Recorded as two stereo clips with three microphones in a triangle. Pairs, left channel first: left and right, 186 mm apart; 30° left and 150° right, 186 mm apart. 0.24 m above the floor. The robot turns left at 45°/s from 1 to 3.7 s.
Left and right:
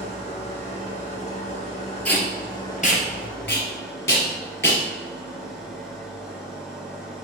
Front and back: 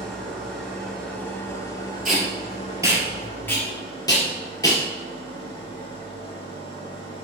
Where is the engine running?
115° left, 0.8 m; by 7.2 s 5° right, 0.8 m.